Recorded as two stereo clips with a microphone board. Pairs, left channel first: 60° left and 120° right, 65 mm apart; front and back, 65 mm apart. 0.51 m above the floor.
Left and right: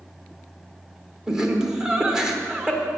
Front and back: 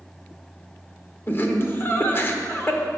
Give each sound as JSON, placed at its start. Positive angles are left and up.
{"t": 1.3, "sound": "laughter", "azimuth_deg": -45, "distance_m": 1.2}